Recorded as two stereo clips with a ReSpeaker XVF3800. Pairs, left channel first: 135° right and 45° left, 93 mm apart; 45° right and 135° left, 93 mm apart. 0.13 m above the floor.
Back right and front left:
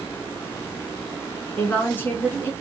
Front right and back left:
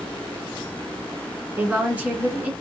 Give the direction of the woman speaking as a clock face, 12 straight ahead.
6 o'clock.